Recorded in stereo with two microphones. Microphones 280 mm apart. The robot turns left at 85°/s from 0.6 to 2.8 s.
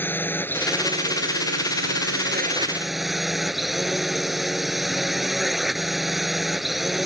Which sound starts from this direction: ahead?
A drone, at 0.0 s.